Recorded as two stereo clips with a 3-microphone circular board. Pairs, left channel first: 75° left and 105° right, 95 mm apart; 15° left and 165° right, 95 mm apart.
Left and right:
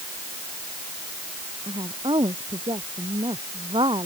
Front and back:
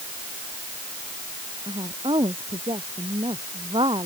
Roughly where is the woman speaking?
Behind right.